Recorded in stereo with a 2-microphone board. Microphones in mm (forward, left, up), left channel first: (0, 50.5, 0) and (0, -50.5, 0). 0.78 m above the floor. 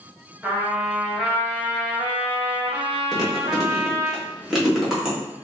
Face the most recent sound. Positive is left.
turn(degrees=-5)  # may be behind; listen again after turning